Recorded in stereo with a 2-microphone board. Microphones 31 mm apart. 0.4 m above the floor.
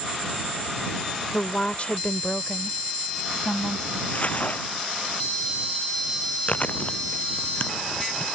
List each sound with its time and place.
1.3 s a woman speaking: 35° left (ahead or behind); by 4.0 s 30° left (ahead or behind)
4.1 s crumpling: 50° left (ahead or behind)
6.5 s chewing: 50° left (ahead or behind)